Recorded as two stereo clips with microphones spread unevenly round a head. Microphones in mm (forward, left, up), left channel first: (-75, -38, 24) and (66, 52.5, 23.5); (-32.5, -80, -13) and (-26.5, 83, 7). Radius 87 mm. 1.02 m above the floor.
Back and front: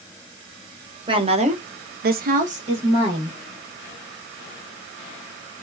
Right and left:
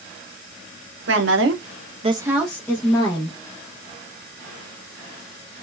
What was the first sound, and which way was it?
A woman speaking, 95° left.